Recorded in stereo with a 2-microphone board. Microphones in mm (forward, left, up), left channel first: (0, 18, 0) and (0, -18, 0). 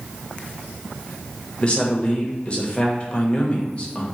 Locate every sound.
1.6 s a man speaking: 30° left (ahead or behind), 0.9 m